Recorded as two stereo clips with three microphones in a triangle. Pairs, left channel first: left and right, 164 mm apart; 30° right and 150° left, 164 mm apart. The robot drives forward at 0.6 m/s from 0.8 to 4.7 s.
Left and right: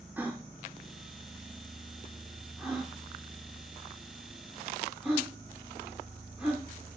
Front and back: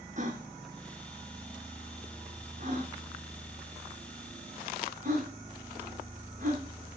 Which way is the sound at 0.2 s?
170° right.